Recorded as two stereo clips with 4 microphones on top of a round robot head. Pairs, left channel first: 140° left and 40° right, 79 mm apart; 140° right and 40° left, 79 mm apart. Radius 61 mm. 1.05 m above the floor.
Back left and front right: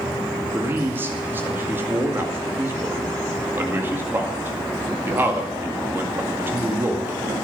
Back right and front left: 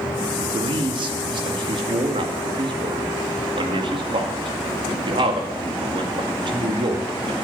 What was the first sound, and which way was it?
A man speaking, 25° left.